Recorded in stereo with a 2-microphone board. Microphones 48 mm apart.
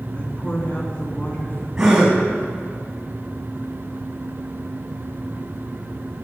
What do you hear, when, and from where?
0.1 s a woman speaking: 35° left (ahead or behind), 2.5 m
1.8 s a gasp: 15° right (ahead or behind), 5 m